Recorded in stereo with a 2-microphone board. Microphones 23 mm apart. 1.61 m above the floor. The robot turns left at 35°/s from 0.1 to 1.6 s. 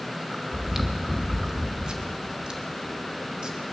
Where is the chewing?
15° right (ahead or behind), 1.3 m; by 3.6 s 40° right (ahead or behind), 1.3 m.